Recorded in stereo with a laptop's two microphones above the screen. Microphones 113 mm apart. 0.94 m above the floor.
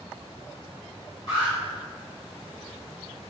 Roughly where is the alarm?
Left.